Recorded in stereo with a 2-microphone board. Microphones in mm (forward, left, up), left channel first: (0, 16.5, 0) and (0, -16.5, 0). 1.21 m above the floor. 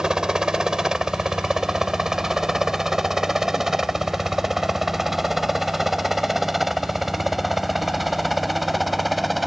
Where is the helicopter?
20° right (ahead or behind); by 9.5 s centre (ahead or behind).